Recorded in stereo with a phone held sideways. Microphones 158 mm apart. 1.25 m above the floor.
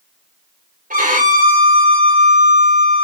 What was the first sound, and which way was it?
A violin, 55° right (ahead or behind).